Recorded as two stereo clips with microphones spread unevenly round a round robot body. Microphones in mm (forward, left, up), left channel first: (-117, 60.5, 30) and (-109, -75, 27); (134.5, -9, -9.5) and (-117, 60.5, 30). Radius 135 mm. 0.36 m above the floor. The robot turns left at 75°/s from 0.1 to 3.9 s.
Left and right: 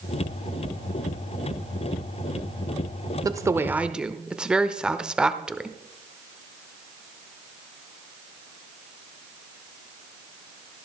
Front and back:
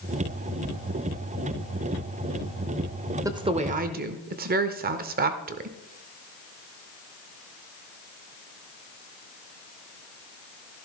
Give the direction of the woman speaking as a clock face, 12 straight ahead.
4 o'clock.